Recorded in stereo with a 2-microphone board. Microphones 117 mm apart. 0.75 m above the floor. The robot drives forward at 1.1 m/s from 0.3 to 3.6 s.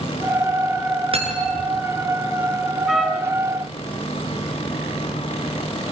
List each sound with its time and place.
1.1 s cutlery clinking: 55° right (ahead or behind), 6.5 m; by 1.7 s 50° right (ahead or behind), 7 m
2.9 s a trumpet: centre (ahead or behind), 4 m